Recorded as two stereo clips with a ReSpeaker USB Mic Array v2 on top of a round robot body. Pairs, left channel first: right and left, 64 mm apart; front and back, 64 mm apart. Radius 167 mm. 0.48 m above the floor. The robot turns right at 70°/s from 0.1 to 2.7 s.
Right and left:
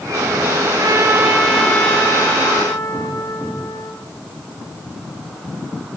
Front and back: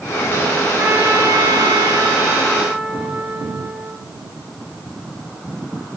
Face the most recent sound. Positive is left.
turn(degrees=-110)